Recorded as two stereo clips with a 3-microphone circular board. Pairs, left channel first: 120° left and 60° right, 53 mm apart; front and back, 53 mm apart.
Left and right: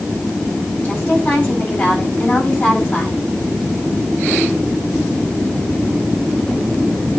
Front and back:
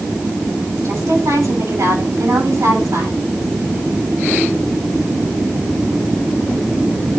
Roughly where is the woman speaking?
Behind.